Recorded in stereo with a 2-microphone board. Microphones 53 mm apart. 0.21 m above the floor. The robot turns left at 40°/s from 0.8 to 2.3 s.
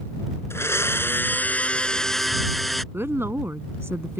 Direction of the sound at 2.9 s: 50° right (ahead or behind).